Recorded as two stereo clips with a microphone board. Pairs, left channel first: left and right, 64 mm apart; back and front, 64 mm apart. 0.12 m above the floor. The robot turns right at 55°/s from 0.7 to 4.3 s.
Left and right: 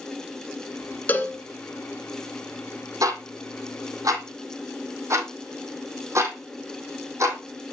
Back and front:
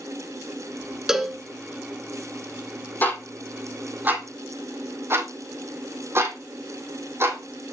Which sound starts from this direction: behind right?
Ticking, at 3.0 s.